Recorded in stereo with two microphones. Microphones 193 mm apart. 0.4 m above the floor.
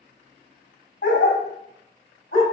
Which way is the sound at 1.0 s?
80° left.